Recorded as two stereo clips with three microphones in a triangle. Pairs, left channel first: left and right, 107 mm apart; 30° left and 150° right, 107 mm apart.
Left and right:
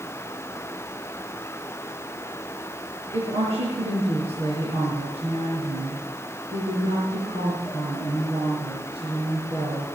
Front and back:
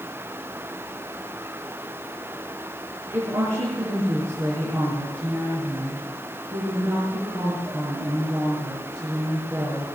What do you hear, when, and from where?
3.1 s a woman speaking: 90° right, 5.5 m